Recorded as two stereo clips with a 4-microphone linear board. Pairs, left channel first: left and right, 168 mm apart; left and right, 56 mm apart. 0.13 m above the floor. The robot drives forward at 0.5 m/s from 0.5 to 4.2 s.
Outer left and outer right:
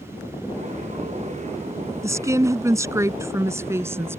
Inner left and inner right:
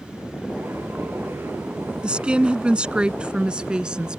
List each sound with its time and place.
2.0 s a woman speaking: 20° right (ahead or behind); by 4.2 s 15° right (ahead or behind)